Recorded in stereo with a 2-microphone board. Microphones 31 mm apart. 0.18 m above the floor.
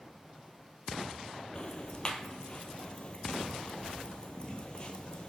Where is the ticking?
35° left (ahead or behind), 0.9 m.